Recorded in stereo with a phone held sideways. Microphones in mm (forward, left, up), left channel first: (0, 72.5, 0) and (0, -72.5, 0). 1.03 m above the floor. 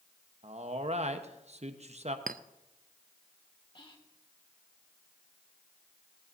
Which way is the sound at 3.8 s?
35° left (ahead or behind).